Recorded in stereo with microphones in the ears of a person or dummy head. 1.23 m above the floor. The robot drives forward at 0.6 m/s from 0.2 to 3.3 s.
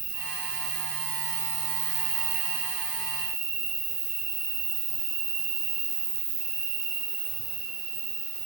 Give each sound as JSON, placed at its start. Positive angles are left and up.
{"t": 0.0, "sound": "an insect", "side_deg": -45, "distance_m": 1.3}